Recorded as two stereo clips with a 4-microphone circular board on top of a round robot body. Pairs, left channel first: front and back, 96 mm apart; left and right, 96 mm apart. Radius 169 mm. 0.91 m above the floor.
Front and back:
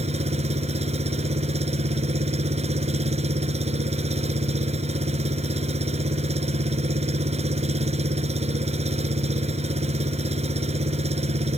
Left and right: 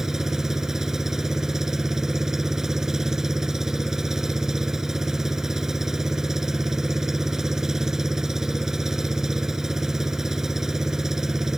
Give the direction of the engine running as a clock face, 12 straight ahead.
6 o'clock.